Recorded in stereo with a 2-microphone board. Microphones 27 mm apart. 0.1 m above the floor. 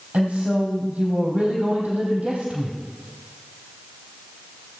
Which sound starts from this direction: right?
A woman speaking, at 0.1 s.